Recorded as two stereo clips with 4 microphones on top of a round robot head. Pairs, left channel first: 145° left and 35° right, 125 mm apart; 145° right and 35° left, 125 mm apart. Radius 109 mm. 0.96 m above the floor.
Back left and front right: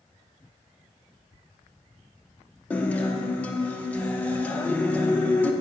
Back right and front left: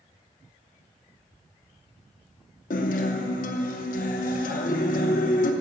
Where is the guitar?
135° right, 0.6 m.